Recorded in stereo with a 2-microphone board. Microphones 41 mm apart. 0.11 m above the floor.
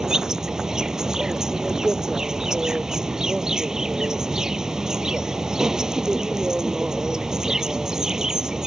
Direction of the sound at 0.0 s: 15° right (ahead or behind).